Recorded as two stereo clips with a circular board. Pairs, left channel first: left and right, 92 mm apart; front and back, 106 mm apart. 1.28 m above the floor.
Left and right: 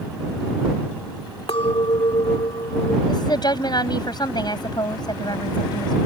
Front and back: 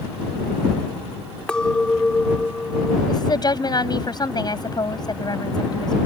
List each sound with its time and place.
1.5 s a clink: 80° left
3.1 s a woman speaking: 50° left